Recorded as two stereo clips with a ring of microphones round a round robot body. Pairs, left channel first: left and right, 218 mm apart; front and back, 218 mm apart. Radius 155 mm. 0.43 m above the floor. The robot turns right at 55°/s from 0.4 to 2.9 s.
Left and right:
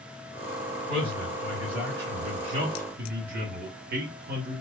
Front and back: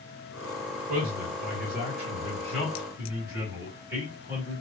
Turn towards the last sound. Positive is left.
turn(degrees=-105)